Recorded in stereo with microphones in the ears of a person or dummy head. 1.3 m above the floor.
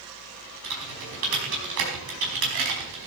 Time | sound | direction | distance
0.6 | typing on a keyboard | 70° right (ahead or behind) | 4.5 m